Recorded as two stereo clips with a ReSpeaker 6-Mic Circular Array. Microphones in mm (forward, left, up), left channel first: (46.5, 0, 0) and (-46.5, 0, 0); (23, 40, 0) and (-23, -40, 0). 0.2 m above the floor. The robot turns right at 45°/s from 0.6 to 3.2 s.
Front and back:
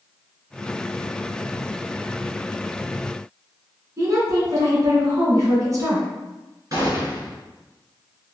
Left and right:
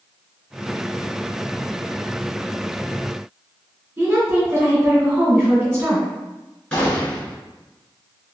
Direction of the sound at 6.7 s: 140° left.